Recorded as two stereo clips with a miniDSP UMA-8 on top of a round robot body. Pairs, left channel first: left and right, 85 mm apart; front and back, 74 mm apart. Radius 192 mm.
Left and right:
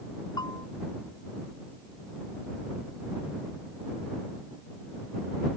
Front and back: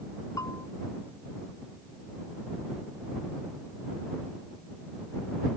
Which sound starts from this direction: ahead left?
A bell, at 0.4 s.